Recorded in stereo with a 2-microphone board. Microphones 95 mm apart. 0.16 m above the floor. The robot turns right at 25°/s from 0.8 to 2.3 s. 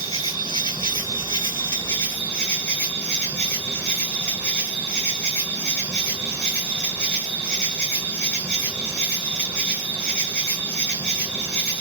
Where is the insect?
125° left, 1.8 m; by 11.8 s 165° left, 1.8 m.